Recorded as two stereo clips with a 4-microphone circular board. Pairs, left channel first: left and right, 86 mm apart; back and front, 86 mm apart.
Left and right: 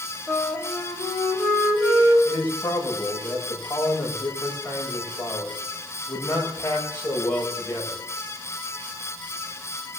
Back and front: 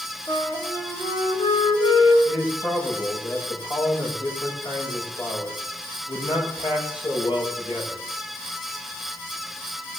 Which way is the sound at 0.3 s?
175° left.